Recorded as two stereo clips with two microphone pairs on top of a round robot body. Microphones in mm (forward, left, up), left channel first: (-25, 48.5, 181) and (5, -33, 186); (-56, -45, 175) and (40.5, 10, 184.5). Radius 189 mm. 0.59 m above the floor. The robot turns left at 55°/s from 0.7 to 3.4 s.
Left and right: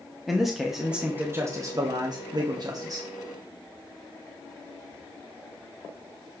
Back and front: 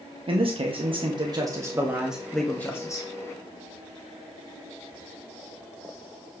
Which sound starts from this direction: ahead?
A man speaking, at 0.3 s.